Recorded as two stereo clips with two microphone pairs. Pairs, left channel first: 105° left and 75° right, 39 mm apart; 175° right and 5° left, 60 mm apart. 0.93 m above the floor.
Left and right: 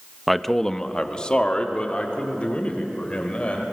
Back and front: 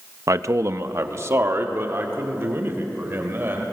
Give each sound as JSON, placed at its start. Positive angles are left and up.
{"t": 0.3, "sound": "a man speaking", "azimuth_deg": 15, "distance_m": 0.8}